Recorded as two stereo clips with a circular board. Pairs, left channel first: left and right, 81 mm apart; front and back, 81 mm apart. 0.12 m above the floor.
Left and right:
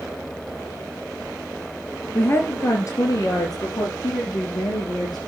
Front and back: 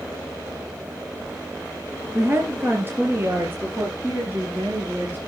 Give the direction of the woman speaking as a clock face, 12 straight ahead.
7 o'clock.